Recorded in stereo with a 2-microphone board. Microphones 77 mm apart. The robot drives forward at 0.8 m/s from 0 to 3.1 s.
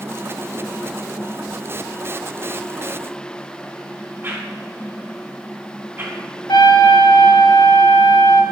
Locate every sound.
4.2 s a whoosh: 30° right (ahead or behind), 2 m
6.5 s a trumpet: 75° left (ahead or behind), 1.2 m